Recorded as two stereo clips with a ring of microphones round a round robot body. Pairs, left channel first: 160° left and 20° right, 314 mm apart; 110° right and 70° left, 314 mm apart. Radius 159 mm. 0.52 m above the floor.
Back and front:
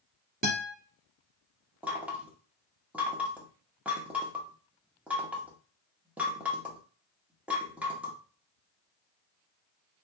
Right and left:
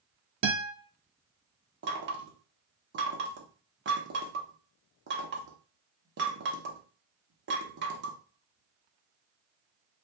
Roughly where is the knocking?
Ahead left.